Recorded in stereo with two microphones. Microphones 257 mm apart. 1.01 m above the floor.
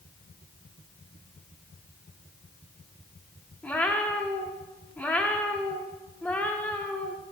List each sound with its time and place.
3.6 s a cat meowing: 5° left (ahead or behind), 0.6 m